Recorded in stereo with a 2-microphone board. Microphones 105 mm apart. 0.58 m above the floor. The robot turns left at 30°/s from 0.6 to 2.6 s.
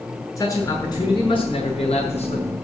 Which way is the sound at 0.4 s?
150° left.